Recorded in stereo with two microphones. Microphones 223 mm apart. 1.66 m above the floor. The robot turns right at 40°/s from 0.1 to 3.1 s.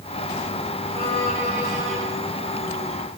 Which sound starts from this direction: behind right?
A violin, at 0.9 s.